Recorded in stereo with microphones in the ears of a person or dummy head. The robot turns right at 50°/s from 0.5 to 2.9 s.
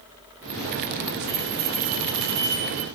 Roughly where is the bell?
Behind right.